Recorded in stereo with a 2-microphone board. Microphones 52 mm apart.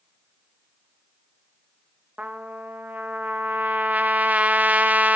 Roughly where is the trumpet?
Right.